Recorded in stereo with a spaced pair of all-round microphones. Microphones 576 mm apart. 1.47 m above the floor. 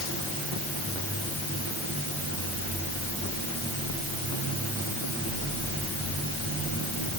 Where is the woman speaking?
I don't hear a woman speaking.